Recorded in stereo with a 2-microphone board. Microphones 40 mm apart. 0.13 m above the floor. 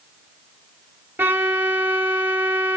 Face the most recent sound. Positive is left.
turn(degrees=-70)  # may be behind; listen again after turning